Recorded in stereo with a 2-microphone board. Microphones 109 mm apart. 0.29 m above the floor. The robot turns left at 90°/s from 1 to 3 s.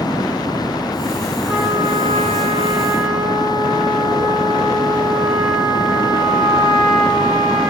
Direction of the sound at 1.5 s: 5° right.